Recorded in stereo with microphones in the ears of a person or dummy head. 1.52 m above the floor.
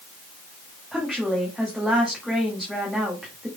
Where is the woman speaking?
10° right (ahead or behind), 2 m.